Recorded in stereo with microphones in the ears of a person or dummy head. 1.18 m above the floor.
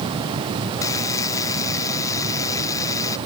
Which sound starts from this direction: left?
A buzzer, at 0.8 s.